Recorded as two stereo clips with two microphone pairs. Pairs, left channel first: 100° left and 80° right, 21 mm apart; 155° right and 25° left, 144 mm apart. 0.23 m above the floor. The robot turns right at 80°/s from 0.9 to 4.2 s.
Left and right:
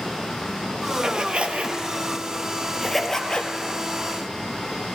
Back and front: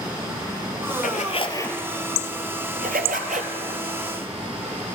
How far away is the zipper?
About 0.8 m.